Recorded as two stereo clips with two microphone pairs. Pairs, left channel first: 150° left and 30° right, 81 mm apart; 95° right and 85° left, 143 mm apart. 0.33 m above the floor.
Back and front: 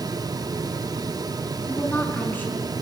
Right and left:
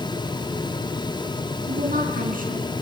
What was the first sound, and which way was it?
A woman speaking, 85° left.